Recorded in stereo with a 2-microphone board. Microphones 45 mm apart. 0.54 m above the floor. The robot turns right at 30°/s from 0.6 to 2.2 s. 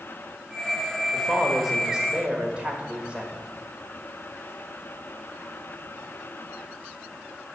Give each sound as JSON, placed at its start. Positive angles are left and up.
{"t": 1.1, "sound": "a woman speaking", "azimuth_deg": 175, "distance_m": 1.5}